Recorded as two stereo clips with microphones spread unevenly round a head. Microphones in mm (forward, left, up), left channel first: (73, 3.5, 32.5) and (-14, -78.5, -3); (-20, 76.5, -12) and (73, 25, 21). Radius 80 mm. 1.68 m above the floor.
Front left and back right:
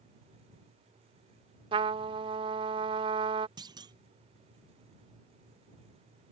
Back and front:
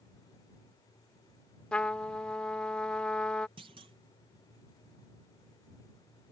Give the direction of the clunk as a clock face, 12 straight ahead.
3 o'clock.